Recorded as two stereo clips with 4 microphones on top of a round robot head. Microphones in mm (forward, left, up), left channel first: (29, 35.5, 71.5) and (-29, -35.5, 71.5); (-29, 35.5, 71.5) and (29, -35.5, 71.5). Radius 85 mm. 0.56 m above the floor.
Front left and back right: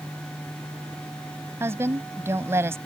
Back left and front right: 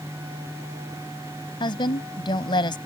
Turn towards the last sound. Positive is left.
turn(degrees=165)